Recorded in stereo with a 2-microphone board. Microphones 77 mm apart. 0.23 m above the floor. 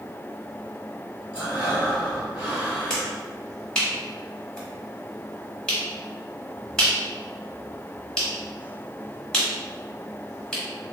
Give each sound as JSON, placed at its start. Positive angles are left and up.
{"t": 1.3, "sound": "breathing", "side_deg": -20, "distance_m": 1.6}
{"t": 2.9, "sound": "a finger snap", "side_deg": 10, "distance_m": 1.4}